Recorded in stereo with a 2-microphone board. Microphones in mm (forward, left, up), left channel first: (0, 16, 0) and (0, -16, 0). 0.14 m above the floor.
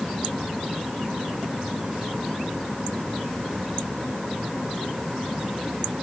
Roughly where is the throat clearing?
No throat clearing in this recording.